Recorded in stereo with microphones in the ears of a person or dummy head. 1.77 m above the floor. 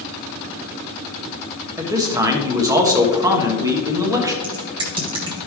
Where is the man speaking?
20° right (ahead or behind), 1.2 m.